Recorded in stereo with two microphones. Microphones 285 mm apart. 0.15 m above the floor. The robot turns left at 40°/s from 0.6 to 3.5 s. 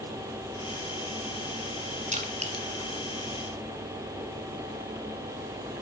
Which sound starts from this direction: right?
Crushing, at 2.1 s.